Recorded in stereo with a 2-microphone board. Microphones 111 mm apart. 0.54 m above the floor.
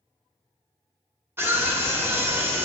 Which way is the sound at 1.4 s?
20° right (ahead or behind).